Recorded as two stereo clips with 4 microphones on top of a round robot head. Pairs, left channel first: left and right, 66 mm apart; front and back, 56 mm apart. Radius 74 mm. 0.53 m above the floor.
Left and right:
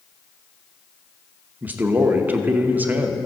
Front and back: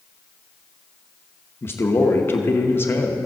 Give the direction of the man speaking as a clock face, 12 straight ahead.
1 o'clock.